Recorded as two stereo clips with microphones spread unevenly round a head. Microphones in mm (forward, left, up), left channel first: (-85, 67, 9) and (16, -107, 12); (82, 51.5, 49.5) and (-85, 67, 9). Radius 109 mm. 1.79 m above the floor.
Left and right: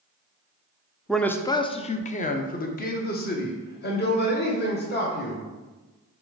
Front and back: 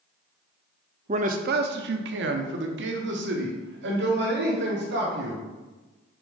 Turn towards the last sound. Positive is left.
turn(degrees=155)